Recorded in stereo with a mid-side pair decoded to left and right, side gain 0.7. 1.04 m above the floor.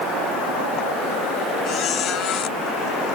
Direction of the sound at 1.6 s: 45° left.